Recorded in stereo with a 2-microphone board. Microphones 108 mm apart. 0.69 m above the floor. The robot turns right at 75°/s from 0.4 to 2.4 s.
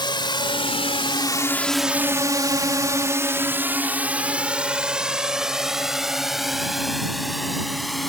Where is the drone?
50° left (ahead or behind); by 8.1 s centre (ahead or behind).